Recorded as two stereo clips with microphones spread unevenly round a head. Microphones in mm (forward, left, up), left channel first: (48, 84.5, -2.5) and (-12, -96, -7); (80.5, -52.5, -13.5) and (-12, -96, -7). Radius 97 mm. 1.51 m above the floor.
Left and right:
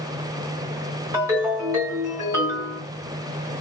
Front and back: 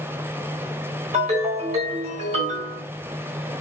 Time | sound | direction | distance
1.1 | a ringtone | 175° left | 1.4 m